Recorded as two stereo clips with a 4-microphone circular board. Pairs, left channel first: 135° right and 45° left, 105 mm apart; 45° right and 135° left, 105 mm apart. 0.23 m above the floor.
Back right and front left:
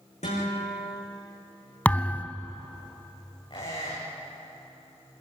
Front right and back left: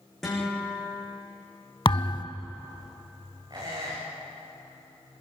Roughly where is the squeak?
Behind.